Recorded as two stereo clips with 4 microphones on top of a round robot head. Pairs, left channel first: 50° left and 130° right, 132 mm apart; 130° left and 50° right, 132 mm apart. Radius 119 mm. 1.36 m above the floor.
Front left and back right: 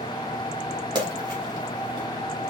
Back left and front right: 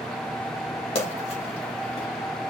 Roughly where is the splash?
Behind.